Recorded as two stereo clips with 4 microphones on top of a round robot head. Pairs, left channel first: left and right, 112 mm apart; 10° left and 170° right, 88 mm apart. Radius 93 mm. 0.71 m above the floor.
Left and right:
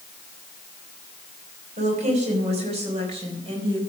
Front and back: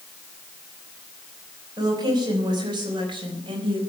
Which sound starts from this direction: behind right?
A woman speaking, at 1.8 s.